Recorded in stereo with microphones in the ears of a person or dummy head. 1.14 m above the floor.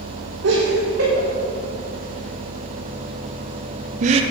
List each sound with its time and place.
0.4 s laughter: 80° right, 4 m; by 4.2 s 30° right (ahead or behind), 0.7 m